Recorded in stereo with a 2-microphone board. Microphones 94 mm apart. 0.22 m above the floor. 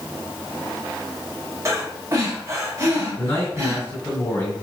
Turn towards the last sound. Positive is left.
turn(degrees=30)  # may be behind; listen again after turning